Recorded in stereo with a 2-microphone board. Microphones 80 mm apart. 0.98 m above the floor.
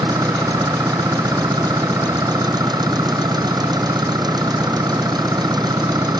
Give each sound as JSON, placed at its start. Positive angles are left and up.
{"t": 0.0, "sound": "an engine running", "side_deg": -60}